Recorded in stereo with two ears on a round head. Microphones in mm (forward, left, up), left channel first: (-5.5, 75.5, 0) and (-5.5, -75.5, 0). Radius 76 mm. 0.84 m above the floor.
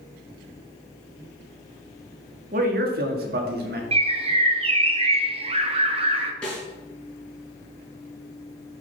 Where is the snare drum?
5° left (ahead or behind), 4.5 m.